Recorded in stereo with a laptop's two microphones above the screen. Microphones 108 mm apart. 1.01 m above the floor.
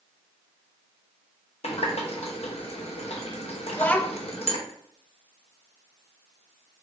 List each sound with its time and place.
1.6 s a running tap: 70° left (ahead or behind), 0.7 m
3.7 s a child speaking: 15° left (ahead or behind), 0.5 m